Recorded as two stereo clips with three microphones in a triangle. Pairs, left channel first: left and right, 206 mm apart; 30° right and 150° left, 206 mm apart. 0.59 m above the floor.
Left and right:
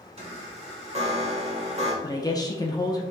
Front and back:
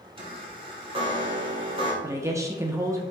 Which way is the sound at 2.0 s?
105° left.